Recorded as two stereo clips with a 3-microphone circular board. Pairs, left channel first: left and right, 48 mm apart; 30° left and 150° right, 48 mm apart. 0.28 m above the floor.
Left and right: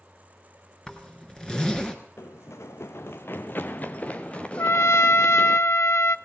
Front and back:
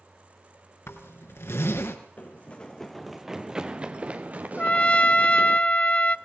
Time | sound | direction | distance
0.9 | a zipper | 20° left | 3.5 m
2.2 | running footsteps | 75° left | 1.3 m
4.6 | a trumpet | 90° left | 0.7 m